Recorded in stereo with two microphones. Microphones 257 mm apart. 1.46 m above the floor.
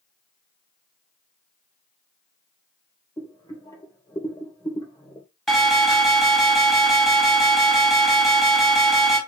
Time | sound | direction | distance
3.2 | boiling | 15° left (ahead or behind) | 3 m
5.5 | an alarm | centre (ahead or behind) | 4 m